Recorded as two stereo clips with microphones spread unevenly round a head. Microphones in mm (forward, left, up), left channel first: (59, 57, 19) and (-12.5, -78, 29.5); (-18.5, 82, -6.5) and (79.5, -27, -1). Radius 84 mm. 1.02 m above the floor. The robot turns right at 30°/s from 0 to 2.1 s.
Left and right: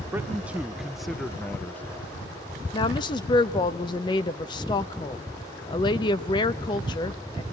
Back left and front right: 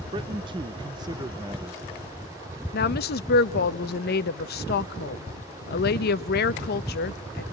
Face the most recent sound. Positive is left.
turn(degrees=125)